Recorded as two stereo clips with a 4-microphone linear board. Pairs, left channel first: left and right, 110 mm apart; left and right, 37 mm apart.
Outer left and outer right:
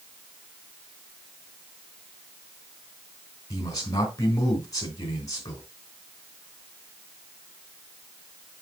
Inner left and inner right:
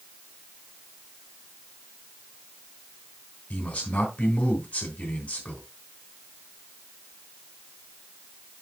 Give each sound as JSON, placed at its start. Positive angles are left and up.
{"t": 3.5, "sound": "a man speaking", "side_deg": 35, "distance_m": 3.0}